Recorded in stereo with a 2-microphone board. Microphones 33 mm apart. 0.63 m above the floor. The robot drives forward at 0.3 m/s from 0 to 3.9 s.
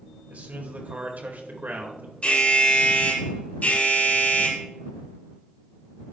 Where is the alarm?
40° left (ahead or behind), 1.8 m; by 4.6 s 50° left (ahead or behind), 1.5 m.